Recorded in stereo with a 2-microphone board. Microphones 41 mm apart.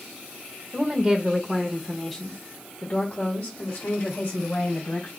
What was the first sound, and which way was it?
A woman speaking, 25° right (ahead or behind).